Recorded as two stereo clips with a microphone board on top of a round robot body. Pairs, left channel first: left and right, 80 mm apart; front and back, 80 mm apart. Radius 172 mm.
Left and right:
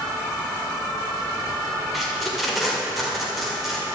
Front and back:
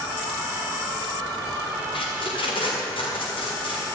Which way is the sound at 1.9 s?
Straight ahead.